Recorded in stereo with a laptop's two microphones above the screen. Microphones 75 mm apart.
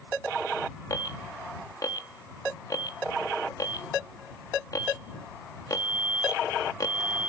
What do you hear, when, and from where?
0.9 s an alarm: 55° left (ahead or behind)